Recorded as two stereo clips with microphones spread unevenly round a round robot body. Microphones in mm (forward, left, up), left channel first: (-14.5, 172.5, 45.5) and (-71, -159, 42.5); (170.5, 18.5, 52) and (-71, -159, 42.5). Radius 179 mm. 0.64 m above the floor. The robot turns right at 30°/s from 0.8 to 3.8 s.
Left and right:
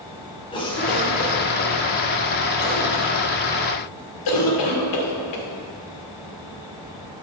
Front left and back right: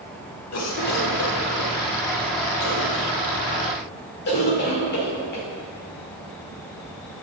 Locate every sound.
0.5 s a cough: 5° left, 2 m; by 5.5 s 95° left, 2 m